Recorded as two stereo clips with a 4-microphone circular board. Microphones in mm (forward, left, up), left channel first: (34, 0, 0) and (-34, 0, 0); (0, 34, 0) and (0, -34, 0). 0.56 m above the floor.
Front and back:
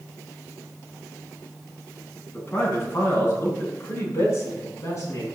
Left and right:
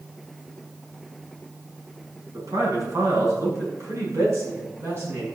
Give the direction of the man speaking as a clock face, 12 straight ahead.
2 o'clock.